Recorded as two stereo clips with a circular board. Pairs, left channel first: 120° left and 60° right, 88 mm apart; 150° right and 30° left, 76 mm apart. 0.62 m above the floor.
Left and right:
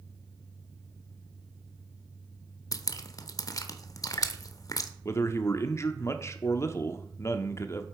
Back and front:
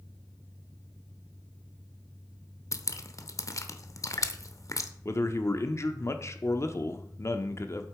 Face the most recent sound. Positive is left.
turn(degrees=170)